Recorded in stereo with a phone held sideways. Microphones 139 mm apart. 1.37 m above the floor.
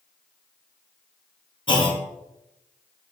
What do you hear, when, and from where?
1.7 s a clunk: 35° left (ahead or behind), 0.6 m